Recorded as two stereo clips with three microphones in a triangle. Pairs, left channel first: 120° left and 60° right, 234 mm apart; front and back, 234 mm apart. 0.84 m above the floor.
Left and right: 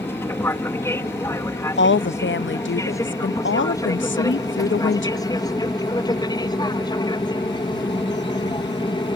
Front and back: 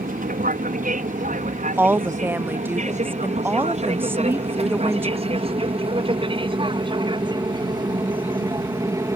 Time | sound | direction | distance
0.0 | an aircraft | 165° right | ?
1.8 | a woman speaking | 100° left | ?